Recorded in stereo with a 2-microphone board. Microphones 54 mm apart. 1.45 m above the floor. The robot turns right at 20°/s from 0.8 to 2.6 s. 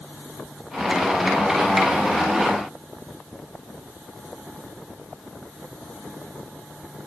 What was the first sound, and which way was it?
Only background noise.